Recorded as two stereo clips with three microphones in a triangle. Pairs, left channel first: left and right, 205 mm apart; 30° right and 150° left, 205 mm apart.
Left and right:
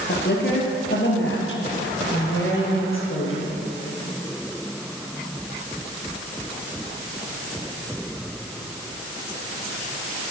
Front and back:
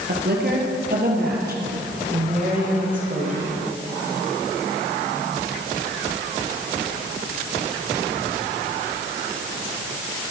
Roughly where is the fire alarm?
I don't hear a fire alarm.